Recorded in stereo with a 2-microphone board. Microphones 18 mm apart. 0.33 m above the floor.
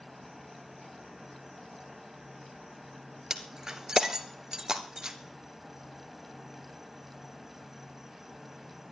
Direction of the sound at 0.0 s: 25° right (ahead or behind).